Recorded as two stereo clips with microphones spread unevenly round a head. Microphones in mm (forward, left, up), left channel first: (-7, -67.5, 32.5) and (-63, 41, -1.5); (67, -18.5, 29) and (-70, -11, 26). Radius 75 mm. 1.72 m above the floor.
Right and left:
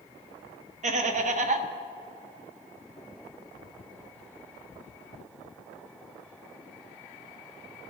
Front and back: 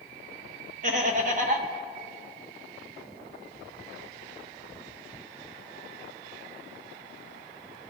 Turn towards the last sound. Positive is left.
turn(degrees=140)